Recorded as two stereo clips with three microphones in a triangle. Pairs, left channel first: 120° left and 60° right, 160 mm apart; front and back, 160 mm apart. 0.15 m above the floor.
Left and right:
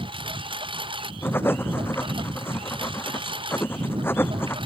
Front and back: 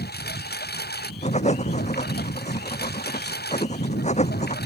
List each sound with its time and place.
0.0 s a lawn mower: straight ahead
1.2 s writing: 45° left